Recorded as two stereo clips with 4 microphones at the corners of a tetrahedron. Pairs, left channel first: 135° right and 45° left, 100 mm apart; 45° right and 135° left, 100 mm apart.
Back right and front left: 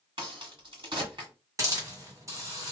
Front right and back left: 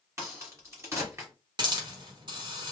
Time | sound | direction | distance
0.2 | a crack | 75° left | 1.6 m
1.6 | a hiss | 100° left | 1.3 m